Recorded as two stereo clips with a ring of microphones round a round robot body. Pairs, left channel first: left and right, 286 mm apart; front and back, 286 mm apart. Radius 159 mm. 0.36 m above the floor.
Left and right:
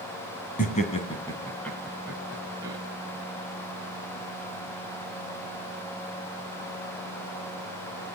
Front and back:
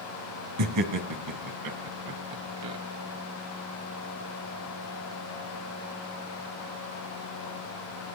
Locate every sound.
0.6 s laughter: 155° left, 3 m; by 2.8 s 170° right, 4 m